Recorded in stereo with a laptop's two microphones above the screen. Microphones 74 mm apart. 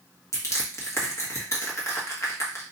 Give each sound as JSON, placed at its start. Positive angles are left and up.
{"t": 0.3, "sound": "crushing", "side_deg": 40, "distance_m": 1.5}